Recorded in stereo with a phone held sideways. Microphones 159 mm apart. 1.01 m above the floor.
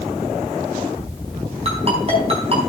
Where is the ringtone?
40° right (ahead or behind), 4.5 m.